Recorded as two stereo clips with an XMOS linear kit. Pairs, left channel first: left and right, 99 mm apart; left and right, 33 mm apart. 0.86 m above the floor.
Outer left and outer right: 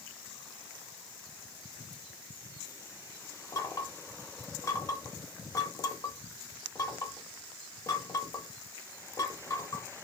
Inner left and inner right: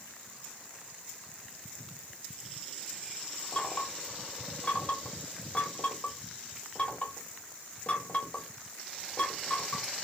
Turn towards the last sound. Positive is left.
turn(degrees=35)  # may be behind; listen again after turning